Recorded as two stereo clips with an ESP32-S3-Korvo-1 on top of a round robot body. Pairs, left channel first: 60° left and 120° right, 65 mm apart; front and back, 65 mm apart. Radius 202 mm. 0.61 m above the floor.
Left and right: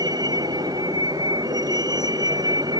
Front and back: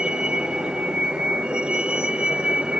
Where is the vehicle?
105° right.